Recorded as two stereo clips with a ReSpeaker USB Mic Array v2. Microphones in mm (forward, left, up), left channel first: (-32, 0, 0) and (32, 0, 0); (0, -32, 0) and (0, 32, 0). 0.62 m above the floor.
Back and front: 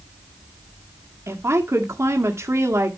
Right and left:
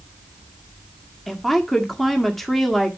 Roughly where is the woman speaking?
Ahead.